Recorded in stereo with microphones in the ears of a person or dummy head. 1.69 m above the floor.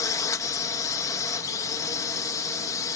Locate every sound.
0.0 s a drone: 15° left (ahead or behind)